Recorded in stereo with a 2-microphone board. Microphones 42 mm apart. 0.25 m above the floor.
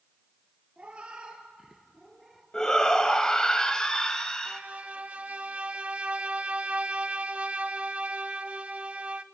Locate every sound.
0.8 s a cat meowing: 30° right (ahead or behind), 2.5 m; by 2.4 s centre (ahead or behind), 2 m
2.5 s a shout: 15° left (ahead or behind), 1.0 m
4.5 s a violin: 35° right (ahead or behind), 0.5 m